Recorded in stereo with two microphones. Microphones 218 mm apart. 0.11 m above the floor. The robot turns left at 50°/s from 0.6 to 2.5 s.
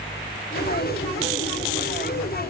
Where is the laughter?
I don't hear laughter.